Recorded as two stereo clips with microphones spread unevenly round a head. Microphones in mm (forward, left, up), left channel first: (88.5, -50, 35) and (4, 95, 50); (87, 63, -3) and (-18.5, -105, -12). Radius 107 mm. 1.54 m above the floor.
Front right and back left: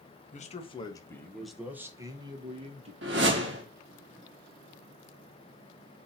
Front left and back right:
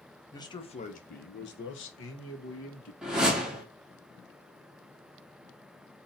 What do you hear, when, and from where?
0.3 s a man speaking: 15° right, 1.0 m; by 2.9 s 70° left, 1.4 m
3.0 s a whoosh: 150° left, 0.8 m